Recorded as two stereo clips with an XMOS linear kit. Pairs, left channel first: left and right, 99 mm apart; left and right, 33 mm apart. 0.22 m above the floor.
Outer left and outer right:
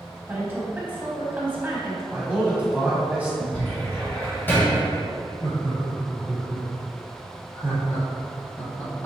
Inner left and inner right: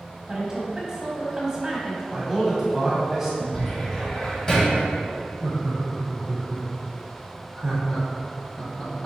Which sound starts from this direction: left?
Laughter, at 5.4 s.